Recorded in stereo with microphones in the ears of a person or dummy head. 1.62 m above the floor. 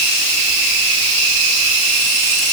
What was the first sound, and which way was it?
Only background noise.